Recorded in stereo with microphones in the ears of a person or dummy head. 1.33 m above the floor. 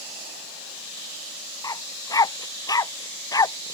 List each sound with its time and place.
1.6 s a dog barking: 25° left (ahead or behind)